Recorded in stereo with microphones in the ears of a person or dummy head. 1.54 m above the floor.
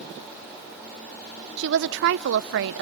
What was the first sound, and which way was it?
A woman speaking, 60° right (ahead or behind).